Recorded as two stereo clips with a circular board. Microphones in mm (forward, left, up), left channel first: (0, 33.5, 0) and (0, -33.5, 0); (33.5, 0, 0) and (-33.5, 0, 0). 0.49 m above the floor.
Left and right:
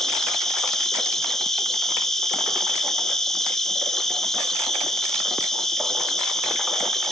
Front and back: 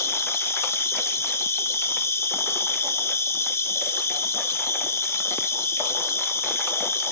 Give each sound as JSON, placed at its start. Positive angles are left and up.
{"t": 0.0, "sound": "an insect", "azimuth_deg": 10, "distance_m": 0.9}